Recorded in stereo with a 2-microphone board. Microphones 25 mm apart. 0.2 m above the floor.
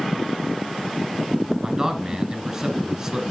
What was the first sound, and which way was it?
A man speaking, 20° right (ahead or behind).